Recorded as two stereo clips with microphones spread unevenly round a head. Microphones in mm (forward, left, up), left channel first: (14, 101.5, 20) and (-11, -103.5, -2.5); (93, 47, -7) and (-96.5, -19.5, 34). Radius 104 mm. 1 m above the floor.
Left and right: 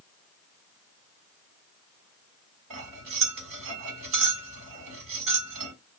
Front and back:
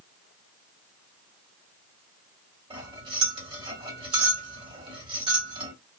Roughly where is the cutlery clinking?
Right.